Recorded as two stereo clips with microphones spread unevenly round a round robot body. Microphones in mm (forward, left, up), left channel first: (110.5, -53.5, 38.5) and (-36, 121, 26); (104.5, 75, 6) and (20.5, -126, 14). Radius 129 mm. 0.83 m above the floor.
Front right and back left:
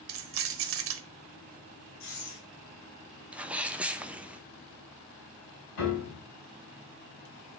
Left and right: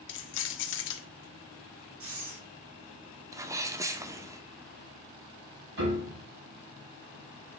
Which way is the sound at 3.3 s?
165° right.